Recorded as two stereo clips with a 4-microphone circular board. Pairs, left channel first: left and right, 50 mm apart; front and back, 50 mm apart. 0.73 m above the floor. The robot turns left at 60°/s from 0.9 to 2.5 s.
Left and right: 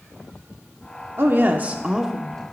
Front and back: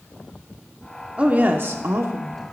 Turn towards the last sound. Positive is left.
turn(degrees=160)